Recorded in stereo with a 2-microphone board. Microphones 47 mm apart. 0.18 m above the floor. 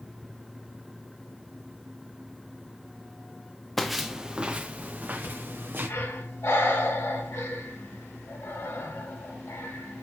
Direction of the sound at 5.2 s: 70° left (ahead or behind).